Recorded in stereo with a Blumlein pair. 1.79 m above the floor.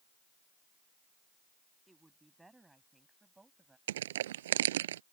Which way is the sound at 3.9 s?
60° right.